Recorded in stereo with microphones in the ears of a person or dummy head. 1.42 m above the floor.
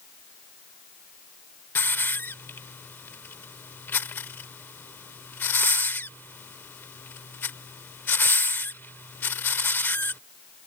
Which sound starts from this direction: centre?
A hiss, at 1.8 s.